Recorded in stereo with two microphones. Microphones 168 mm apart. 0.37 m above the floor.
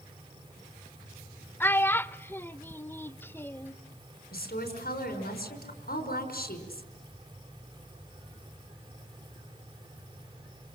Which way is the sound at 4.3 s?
60° left (ahead or behind).